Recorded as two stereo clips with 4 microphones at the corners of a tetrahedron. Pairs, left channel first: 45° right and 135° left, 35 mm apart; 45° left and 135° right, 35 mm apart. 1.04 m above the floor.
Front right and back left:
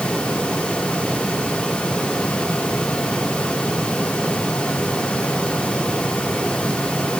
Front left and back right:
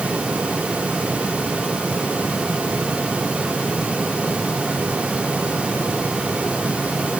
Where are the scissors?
No scissors in this recording.